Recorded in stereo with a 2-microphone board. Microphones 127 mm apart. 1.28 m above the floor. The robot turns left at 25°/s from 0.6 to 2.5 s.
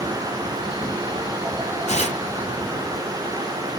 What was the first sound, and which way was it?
Tearing paper, 55° left (ahead or behind).